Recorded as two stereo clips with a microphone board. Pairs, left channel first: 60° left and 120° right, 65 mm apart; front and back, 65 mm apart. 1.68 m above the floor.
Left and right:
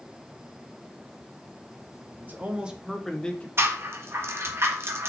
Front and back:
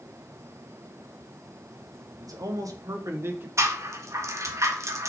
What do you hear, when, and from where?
2.2 s a man speaking: straight behind, 1.7 m; by 3.5 s 125° left, 1.4 m
3.6 s a rattle: 160° right, 1.5 m